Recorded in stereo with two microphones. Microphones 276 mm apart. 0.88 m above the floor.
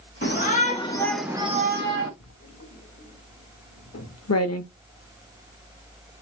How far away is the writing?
About 0.8 m.